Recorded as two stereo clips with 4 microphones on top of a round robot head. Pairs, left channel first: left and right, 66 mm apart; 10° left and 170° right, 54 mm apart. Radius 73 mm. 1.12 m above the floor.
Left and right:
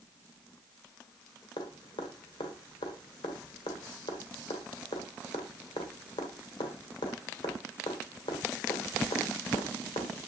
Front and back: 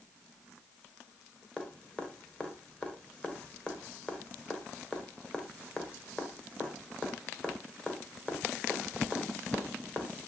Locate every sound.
1.6 s dripping: 80° left, 1.4 m